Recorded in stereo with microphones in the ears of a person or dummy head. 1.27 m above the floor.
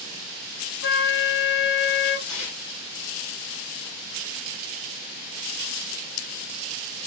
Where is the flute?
50° left (ahead or behind), 0.7 m.